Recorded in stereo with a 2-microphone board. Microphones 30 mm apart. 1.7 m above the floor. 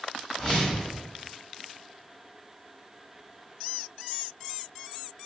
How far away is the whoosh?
About 1.2 m.